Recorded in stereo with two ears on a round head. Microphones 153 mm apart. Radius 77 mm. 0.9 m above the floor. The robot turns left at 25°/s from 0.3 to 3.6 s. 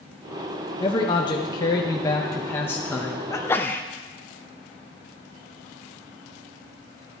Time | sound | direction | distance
0.8 | a man speaking | 30° left (ahead or behind) | 0.8 m
3.3 | a sneeze | 15° left (ahead or behind) | 0.5 m